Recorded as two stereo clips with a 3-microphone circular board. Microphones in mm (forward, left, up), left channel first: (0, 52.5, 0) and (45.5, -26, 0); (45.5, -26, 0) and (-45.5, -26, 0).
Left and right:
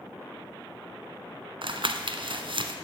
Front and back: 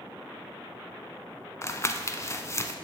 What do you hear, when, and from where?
1.6 s crumpling: 55° right, 0.7 m